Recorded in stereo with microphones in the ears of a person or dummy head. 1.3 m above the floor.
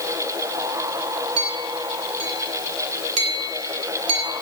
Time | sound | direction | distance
1.4 | a clink | 80° right | 3.5 m